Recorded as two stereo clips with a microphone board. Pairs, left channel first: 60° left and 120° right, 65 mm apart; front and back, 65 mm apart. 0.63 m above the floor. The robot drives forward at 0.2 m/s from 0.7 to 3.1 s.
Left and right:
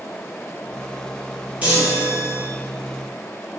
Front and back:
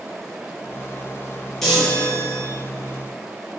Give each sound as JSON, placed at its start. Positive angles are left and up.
{"t": 1.6, "sound": "a chime", "azimuth_deg": -85, "distance_m": 0.8}